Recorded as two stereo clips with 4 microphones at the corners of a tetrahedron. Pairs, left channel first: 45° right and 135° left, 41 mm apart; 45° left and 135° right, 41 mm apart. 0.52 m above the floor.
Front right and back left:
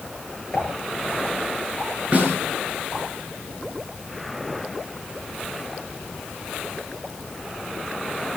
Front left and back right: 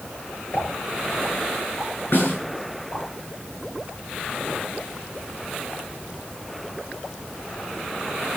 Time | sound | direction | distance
0.5 | a pop | 30° left | 9 m
2.1 | a snare drum | 80° left | 7.5 m